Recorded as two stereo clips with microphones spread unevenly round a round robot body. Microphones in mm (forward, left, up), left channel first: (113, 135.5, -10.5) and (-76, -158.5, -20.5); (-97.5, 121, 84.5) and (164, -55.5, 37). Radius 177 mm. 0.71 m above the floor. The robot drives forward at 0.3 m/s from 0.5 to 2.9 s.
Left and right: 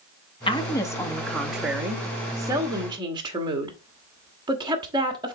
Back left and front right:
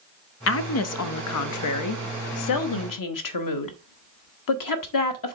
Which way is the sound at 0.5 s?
125° left.